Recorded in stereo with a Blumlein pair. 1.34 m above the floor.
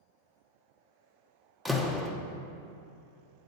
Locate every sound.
1.6 s a door slam: straight ahead, 0.9 m